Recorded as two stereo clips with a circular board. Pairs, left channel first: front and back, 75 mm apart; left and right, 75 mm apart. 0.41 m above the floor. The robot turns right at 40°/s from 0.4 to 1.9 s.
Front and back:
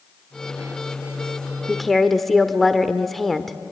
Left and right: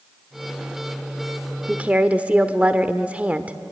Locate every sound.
1.7 s a woman speaking: 90° right, 0.9 m; by 3.6 s 80° right, 0.9 m